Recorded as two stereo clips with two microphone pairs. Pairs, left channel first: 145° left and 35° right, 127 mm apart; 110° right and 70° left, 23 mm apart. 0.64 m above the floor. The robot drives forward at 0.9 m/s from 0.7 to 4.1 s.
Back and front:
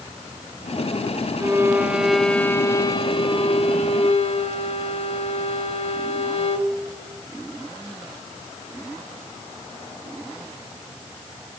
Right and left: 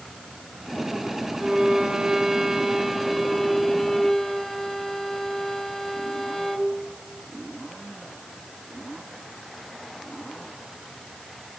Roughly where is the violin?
Ahead left.